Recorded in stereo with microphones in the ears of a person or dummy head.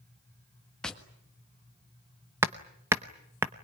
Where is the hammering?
15° right (ahead or behind), 0.8 m.